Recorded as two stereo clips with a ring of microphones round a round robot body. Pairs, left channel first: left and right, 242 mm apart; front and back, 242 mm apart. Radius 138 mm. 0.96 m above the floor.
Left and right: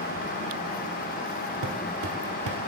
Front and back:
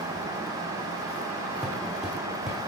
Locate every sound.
1.6 s footsteps: 90° right, 1.3 m